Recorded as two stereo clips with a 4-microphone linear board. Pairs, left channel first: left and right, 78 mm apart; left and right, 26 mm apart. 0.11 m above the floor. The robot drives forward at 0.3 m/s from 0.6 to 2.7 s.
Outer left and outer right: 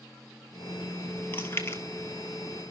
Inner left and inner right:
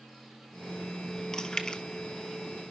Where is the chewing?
30° left (ahead or behind), 0.9 m; by 1.8 s 35° left (ahead or behind), 0.8 m.